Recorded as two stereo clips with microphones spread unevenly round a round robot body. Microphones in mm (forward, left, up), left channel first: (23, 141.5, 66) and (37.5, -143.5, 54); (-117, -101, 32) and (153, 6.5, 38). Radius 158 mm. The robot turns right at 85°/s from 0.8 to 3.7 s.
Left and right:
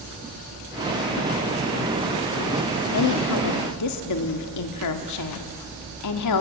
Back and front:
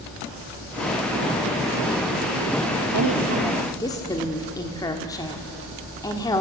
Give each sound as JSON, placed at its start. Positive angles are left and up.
{"t": 2.9, "sound": "a woman speaking", "azimuth_deg": 55, "distance_m": 1.6}